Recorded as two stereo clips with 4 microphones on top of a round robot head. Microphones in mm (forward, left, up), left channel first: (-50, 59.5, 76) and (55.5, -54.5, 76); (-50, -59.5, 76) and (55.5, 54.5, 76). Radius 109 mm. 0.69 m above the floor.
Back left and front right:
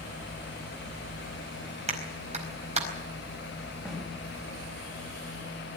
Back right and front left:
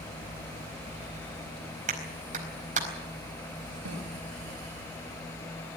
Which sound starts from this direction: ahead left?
A snare drum, at 3.9 s.